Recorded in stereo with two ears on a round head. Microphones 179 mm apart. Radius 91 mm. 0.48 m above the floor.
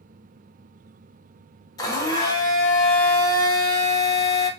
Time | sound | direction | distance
1.8 | a blender | 20° left (ahead or behind) | 0.5 m